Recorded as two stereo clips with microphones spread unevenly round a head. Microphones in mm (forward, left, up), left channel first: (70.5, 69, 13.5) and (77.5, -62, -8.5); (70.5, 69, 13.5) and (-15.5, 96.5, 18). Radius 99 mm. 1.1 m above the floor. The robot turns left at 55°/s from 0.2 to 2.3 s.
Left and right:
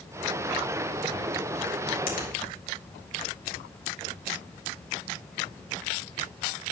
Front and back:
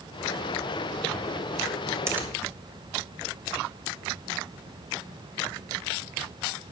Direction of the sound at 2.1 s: 100° left.